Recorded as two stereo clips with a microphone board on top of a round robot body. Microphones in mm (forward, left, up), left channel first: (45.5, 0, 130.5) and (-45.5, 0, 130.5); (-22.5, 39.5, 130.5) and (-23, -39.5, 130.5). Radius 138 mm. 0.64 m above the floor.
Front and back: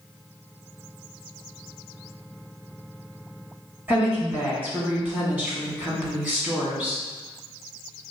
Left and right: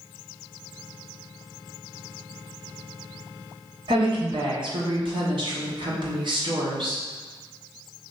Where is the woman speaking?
105° right, 1.9 m.